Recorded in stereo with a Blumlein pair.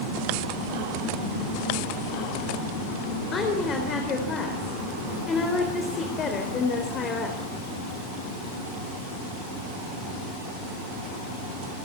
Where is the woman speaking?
25° left, 4 m.